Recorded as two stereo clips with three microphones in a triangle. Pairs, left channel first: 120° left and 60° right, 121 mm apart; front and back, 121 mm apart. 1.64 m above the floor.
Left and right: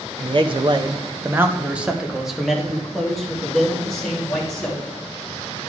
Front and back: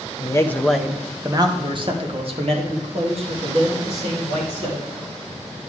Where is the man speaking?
40° right, 0.7 m; by 4.8 s 155° right, 3 m.